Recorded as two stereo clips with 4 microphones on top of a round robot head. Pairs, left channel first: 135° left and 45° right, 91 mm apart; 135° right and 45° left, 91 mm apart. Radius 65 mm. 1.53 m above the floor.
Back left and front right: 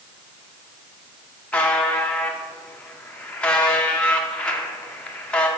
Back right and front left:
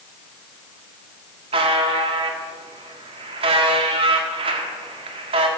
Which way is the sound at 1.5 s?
60° left.